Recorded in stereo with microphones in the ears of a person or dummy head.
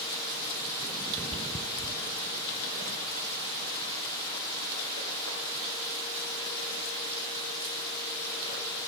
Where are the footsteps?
15° right (ahead or behind), 1.2 m; by 8.8 s 55° right (ahead or behind), 10 m.